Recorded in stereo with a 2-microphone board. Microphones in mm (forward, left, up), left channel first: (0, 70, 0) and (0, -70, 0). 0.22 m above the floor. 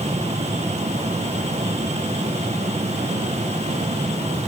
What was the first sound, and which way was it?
Only background noise.